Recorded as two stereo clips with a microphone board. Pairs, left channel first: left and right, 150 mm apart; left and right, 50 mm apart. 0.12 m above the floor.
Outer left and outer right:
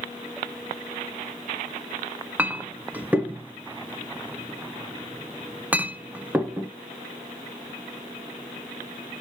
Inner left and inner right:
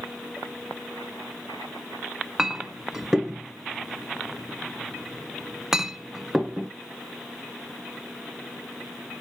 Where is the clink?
10° right (ahead or behind), 0.8 m.